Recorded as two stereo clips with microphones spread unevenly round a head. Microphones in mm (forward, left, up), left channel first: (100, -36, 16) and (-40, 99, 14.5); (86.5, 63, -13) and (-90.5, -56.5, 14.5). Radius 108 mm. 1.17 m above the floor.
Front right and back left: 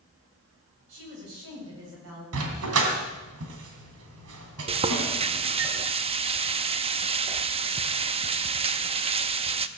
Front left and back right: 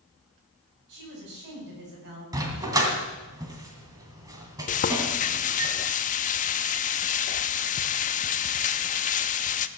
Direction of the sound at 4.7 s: 85° left.